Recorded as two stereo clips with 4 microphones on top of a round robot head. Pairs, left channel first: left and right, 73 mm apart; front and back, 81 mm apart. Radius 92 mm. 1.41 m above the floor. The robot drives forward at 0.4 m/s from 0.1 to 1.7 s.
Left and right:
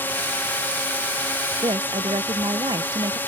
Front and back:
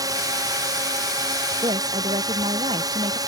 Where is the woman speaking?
135° right.